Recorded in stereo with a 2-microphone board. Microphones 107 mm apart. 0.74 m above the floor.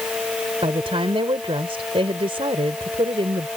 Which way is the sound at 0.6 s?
60° right (ahead or behind).